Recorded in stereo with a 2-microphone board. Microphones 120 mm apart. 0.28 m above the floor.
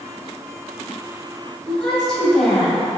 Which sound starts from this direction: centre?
A woman speaking, at 1.7 s.